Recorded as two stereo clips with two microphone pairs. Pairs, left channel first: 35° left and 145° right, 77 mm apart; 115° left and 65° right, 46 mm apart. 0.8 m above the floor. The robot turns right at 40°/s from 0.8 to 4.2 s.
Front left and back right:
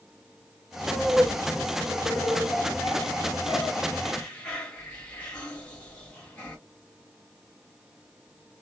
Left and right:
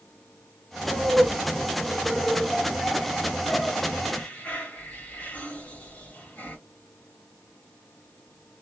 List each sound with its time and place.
0.9 s laughter: 30° right, 1.3 m; by 6.6 s 100° left, 1.3 m